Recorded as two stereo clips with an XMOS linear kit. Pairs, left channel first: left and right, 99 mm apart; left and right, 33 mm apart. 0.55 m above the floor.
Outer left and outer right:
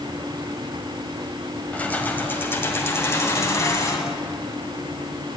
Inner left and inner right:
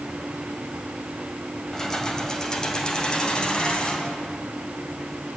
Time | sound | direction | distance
1.7 | keys jangling | 15° left (ahead or behind) | 2 m